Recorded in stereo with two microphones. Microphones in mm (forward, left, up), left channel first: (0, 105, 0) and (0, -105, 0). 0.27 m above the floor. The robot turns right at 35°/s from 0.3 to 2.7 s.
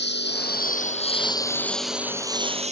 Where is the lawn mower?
65° left (ahead or behind); by 2.7 s 35° right (ahead or behind).